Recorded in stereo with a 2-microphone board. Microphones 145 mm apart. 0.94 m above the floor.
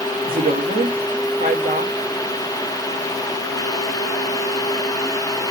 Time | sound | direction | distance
0.3 | a woman speaking | 75° right (ahead or behind) | 1.6 m